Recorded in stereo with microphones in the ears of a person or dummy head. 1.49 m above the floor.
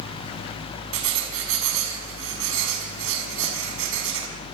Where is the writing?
80° right, 5.5 m.